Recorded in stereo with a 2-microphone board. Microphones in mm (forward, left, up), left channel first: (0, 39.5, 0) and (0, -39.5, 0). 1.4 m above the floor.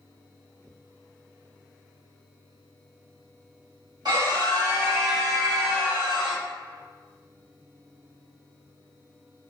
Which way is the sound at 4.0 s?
60° right (ahead or behind).